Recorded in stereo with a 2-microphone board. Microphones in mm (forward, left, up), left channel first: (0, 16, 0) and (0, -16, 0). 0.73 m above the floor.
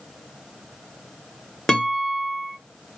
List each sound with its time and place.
1.7 s a guitar: 25° left (ahead or behind), 1.0 m